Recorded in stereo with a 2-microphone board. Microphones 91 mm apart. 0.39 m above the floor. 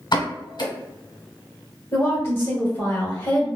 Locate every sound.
0.1 s a pop: 60° left (ahead or behind), 1.1 m
1.9 s a woman speaking: 30° left (ahead or behind), 1.4 m